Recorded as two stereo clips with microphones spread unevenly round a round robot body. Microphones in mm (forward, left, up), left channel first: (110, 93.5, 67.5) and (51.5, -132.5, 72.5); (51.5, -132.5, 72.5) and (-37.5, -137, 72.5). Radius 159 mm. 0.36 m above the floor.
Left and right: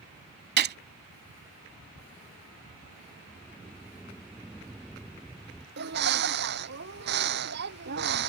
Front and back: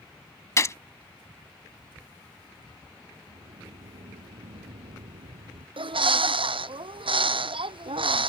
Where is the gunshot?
55° right.